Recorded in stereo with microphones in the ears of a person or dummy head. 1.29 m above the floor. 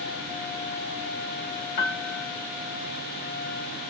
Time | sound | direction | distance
1.8 | a piano | 50° left (ahead or behind) | 1.9 m